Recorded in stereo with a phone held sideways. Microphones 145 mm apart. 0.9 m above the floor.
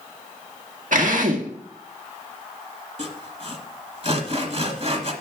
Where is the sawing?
50° right (ahead or behind), 1.5 m.